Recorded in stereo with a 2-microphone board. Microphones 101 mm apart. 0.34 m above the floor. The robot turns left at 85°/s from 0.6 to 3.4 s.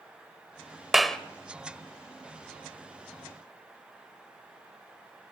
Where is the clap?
5° right (ahead or behind), 1.1 m; by 1.2 s 10° left (ahead or behind), 1.1 m.